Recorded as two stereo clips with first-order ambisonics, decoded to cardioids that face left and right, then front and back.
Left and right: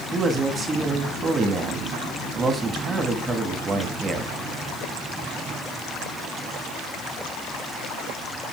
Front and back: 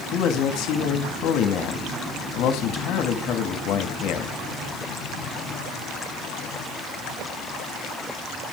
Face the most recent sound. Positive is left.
turn(degrees=-25)